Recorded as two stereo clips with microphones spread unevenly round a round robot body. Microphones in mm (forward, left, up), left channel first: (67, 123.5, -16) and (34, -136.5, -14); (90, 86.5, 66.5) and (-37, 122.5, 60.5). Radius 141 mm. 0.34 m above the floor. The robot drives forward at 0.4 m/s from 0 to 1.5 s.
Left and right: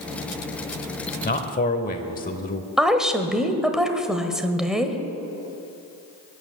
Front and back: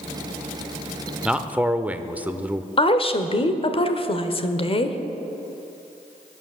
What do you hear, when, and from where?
1.2 s a man speaking: 90° left, 1.0 m; by 2.7 s 100° left, 1.0 m
2.8 s a woman speaking: 10° right, 1.3 m